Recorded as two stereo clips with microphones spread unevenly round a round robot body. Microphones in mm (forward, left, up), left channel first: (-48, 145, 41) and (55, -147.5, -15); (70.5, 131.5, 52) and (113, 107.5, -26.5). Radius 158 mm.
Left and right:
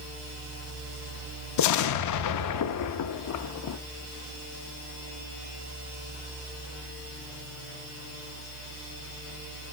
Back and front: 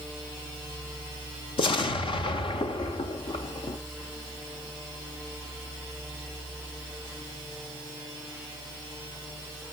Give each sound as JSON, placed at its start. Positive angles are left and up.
{"t": 1.6, "sound": "an explosion", "azimuth_deg": 145, "distance_m": 0.7}